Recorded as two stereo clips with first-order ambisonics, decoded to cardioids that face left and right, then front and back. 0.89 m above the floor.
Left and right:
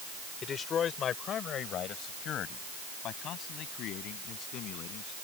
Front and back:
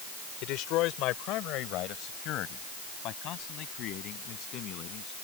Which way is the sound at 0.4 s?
30° left.